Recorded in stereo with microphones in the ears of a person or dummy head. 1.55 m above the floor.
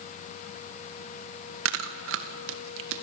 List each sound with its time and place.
1.6 s chewing: 70° right (ahead or behind), 1.5 m